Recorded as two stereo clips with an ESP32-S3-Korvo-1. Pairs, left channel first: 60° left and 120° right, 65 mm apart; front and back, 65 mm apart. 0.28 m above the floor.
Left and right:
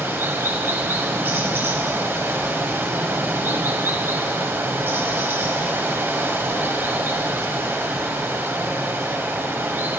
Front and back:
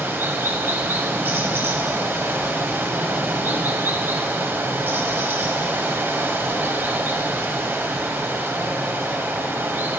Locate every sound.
0.0 s running water: 150° right, 1.4 m